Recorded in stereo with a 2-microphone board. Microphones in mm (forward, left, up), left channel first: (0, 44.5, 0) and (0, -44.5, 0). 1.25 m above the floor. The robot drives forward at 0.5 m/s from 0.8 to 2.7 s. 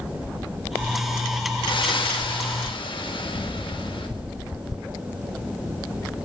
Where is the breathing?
70° left (ahead or behind), 4.5 m; by 4.1 s 75° left (ahead or behind), 4.5 m.